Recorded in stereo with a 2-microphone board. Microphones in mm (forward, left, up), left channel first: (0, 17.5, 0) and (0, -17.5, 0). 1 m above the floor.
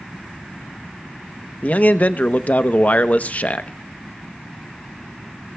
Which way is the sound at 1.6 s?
45° left (ahead or behind).